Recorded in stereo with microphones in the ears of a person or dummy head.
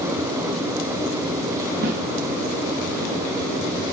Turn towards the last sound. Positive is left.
turn(degrees=-55)  # may be behind; listen again after turning